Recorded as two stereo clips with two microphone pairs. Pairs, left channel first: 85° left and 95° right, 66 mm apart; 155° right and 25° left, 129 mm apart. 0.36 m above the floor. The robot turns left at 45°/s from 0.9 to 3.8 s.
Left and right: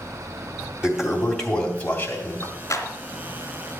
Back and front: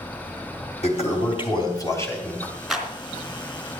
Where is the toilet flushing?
170° right, 3 m; by 2.5 s 120° left, 3 m.